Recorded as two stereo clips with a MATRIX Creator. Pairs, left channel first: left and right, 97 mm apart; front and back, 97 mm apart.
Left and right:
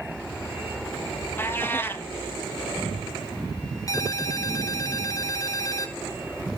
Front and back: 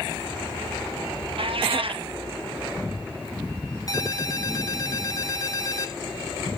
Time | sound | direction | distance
1.4 | a cat meowing | 155° left | 0.9 m
3.9 | a ringtone | 45° left | 1.5 m